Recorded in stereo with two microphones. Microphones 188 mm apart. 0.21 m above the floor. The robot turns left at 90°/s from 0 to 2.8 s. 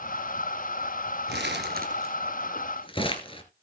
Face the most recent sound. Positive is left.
turn(degrees=30)  # may be behind; listen again after turning